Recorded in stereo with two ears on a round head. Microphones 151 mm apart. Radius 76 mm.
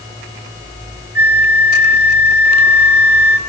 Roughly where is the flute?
Centre.